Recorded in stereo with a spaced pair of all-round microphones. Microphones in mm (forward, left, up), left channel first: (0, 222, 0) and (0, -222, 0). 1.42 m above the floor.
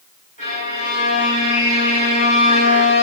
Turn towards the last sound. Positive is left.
turn(degrees=-45)  # may be behind; listen again after turning